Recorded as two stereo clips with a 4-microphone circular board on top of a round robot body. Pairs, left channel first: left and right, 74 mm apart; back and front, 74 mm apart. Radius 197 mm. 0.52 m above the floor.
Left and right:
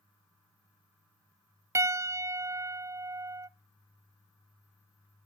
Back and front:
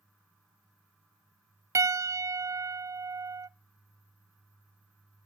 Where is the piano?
45° right, 0.5 m.